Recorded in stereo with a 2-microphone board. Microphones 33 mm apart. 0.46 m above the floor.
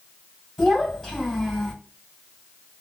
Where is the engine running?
I don't hear an engine running.